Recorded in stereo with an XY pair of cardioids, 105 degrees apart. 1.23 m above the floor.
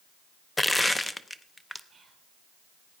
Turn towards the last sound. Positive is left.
turn(degrees=-30)